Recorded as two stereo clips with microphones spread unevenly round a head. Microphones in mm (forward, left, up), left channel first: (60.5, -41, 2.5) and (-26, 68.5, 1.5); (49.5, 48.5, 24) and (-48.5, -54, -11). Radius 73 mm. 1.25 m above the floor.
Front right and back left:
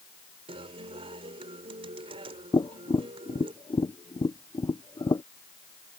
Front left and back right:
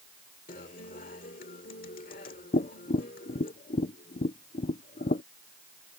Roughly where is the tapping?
Ahead.